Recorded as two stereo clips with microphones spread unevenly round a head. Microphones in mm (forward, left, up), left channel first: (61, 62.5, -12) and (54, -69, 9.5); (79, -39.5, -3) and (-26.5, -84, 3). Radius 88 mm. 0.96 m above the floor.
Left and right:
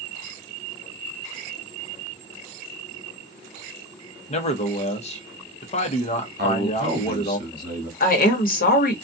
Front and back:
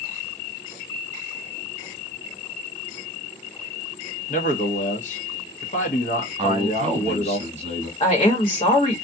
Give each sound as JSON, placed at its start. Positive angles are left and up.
{"t": 4.3, "sound": "a man speaking", "azimuth_deg": 55, "distance_m": 0.9}
{"t": 6.4, "sound": "a man speaking", "azimuth_deg": -140, "distance_m": 1.1}
{"t": 8.0, "sound": "a woman speaking", "azimuth_deg": 85, "distance_m": 1.1}